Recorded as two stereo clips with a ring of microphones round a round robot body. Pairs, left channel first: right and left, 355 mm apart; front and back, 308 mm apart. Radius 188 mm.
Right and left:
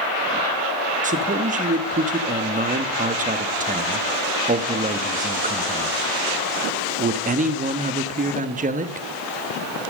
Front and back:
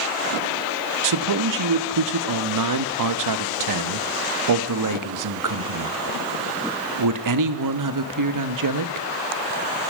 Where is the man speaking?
160° left, 1.1 m.